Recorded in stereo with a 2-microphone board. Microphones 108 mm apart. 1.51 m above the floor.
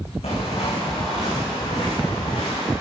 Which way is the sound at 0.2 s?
75° left (ahead or behind).